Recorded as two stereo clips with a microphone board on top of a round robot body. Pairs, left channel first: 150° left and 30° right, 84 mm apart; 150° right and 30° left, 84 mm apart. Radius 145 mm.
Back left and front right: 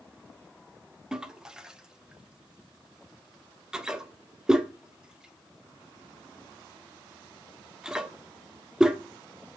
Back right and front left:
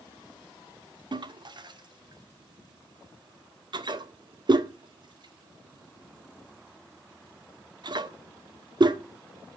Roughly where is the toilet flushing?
Ahead left.